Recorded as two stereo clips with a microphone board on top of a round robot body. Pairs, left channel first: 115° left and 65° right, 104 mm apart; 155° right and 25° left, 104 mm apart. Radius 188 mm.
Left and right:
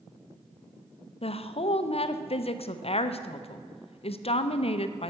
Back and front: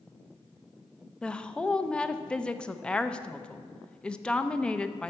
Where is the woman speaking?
125° left, 0.9 m.